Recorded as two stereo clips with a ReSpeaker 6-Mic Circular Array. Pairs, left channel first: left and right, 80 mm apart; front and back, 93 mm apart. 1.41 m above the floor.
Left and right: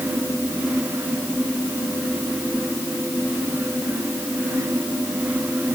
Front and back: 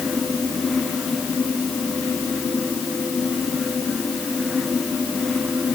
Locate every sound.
Only background noise.